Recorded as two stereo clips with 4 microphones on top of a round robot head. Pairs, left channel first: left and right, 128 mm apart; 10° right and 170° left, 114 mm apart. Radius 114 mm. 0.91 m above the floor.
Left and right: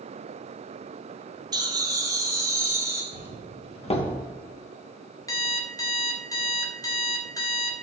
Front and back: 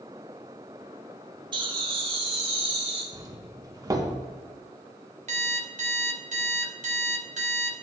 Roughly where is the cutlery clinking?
No cutlery clinking in this recording.